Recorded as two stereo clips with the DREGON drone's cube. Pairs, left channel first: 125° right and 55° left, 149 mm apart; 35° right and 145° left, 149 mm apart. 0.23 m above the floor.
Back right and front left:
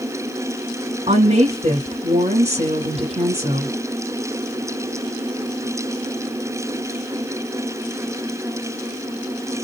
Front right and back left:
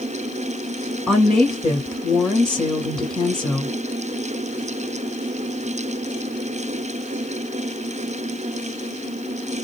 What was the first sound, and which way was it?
A woman speaking, 50° left.